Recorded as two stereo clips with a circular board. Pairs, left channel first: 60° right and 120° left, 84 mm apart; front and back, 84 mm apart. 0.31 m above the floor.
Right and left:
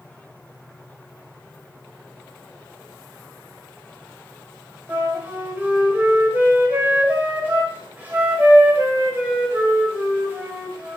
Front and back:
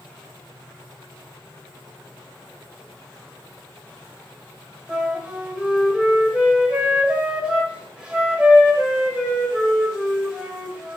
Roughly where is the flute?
Behind left.